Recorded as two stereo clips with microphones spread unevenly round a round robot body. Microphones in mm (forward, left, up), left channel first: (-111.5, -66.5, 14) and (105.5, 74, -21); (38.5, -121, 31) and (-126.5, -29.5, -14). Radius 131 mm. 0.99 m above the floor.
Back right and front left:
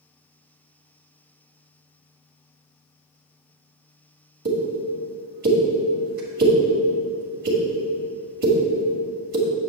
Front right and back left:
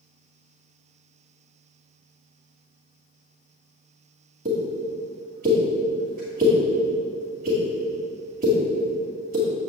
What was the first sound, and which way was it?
A pop, 90° left.